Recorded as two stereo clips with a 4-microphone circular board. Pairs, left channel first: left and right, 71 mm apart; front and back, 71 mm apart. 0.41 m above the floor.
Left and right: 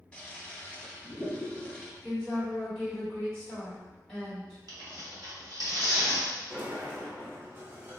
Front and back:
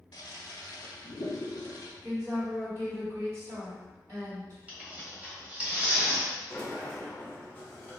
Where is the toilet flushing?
20° left, 0.5 m.